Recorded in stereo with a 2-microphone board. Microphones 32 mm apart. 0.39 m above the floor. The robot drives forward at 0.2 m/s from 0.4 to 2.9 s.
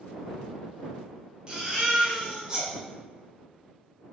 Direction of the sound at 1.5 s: 25° right (ahead or behind).